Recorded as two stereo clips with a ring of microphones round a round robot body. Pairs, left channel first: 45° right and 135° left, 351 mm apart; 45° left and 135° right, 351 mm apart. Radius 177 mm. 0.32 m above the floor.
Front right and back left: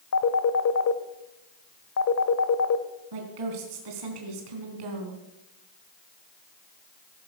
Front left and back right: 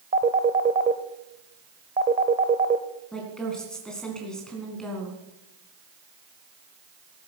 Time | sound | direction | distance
0.1 | a phone ringing | 75° right | 1.1 m
3.1 | a woman speaking | 135° left | 3.5 m